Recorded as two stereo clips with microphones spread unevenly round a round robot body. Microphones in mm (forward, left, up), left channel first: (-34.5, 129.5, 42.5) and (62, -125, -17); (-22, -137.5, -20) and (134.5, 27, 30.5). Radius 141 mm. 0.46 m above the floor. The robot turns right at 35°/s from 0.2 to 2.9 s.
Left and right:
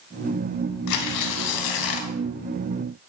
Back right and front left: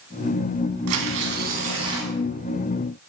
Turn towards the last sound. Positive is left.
turn(degrees=155)